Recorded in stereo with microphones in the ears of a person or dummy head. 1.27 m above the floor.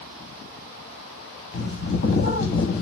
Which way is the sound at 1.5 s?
50° left (ahead or behind).